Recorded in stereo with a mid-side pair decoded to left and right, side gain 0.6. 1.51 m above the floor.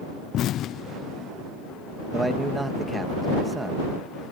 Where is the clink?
I don't hear a clink.